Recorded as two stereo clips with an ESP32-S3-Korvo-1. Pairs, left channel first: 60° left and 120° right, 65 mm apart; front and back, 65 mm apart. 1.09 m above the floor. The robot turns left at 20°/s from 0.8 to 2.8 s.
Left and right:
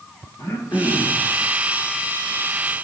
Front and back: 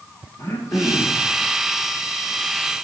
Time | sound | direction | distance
0.4 | throat clearing | 30° left | 1.3 m